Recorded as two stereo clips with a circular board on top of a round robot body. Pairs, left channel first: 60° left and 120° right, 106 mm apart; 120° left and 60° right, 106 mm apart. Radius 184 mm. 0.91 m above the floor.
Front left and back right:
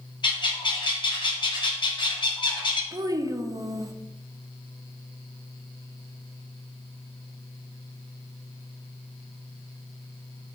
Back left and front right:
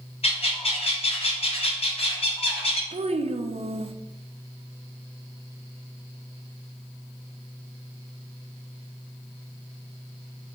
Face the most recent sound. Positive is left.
turn(degrees=-65)